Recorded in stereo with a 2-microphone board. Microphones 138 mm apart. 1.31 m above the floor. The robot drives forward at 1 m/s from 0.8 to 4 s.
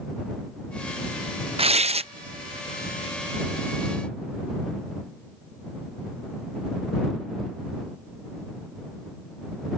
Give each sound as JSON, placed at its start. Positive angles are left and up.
{"t": 1.6, "sound": "tearing paper", "side_deg": -45}